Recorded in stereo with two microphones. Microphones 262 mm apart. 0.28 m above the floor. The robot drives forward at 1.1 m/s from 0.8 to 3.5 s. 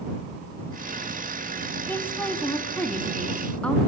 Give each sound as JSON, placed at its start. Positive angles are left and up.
{"t": 1.9, "sound": "a woman speaking", "side_deg": 5, "distance_m": 2.0}